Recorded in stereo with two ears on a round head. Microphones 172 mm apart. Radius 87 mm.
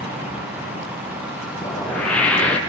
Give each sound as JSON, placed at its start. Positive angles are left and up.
{"t": 1.6, "sound": "a whoosh", "side_deg": 5, "distance_m": 4.0}